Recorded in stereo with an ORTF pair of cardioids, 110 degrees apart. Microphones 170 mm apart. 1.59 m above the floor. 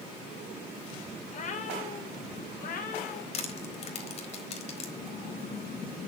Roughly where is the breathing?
Ahead left.